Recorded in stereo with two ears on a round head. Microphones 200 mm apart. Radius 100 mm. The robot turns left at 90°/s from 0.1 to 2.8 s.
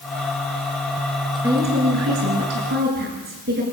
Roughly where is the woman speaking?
Ahead.